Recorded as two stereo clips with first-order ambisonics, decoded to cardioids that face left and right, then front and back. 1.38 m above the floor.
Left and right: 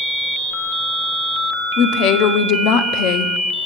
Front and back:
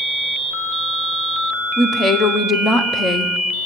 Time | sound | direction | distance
1.8 | a woman speaking | 70° left | 0.5 m